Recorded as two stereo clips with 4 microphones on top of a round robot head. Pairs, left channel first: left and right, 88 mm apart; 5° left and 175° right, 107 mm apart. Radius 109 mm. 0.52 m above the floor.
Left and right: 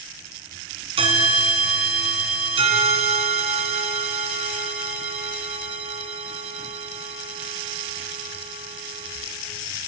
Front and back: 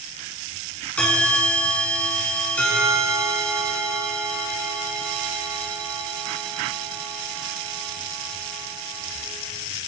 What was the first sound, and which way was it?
A bell, 80° right.